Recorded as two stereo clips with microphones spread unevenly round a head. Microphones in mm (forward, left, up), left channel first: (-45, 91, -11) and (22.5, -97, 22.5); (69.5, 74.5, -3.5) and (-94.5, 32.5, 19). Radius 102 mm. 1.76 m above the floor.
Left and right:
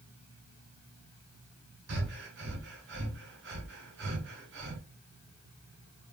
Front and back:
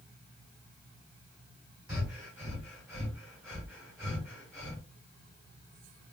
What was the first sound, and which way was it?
Breathing, 80° right.